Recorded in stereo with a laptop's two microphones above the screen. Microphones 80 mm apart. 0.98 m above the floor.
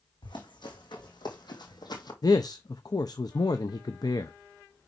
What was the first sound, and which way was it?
Running footsteps, 70° left (ahead or behind).